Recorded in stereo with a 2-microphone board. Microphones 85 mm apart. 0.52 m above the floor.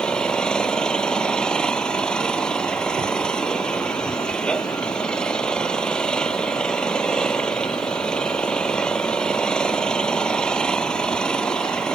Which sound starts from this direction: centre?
An engine running, at 0.0 s.